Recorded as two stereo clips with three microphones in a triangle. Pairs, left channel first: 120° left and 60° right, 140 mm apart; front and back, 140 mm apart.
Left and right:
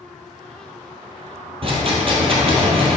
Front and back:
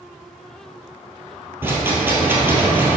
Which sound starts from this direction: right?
A rattle, at 1.6 s.